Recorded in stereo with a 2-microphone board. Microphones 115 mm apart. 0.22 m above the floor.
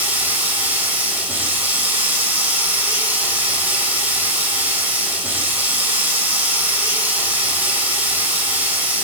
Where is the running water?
15° right (ahead or behind), 5.5 m.